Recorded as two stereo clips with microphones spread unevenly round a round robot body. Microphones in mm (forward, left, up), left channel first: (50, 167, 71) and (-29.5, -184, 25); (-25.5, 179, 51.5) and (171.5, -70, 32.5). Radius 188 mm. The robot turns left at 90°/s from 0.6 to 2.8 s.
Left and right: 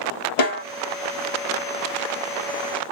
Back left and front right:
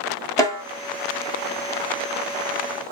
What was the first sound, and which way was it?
A snare drum, 45° left.